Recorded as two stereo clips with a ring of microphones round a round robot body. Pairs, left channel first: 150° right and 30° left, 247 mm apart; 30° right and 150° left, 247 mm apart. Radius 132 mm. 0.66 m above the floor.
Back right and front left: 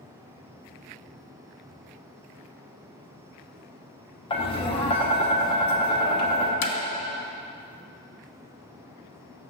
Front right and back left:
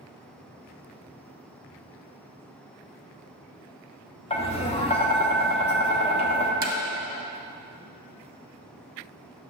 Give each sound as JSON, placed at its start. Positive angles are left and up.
{"t": 4.3, "sound": "tapping", "azimuth_deg": -90, "distance_m": 0.9}
{"t": 6.6, "sound": "hammering", "azimuth_deg": -155, "distance_m": 0.7}